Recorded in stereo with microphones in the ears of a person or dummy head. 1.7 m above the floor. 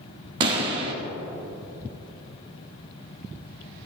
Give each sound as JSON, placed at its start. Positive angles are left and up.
{"t": 0.4, "sound": "a pop", "side_deg": -25, "distance_m": 1.1}